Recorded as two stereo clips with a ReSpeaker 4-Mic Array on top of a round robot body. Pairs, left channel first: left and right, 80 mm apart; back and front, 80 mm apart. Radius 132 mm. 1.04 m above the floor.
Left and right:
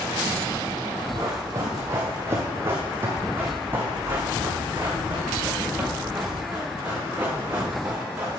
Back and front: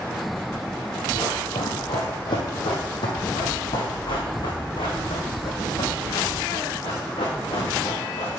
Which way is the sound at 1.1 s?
140° right.